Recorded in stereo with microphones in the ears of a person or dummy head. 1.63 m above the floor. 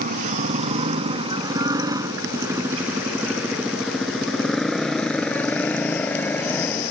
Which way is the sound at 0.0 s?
40° right (ahead or behind).